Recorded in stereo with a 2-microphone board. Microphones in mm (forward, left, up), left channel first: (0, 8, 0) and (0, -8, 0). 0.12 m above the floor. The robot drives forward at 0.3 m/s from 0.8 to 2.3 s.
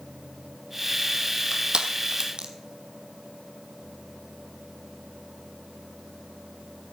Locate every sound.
1.5 s crushing: 65° right (ahead or behind), 1.4 m; by 2.5 s 55° right (ahead or behind), 1.5 m